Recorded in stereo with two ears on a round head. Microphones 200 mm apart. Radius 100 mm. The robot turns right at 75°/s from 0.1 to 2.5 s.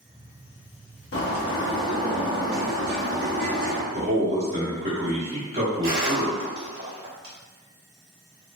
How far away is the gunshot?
About 1.0 m.